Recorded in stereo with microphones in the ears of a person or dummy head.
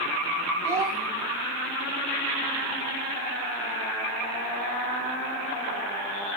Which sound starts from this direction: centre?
A child speaking, at 0.6 s.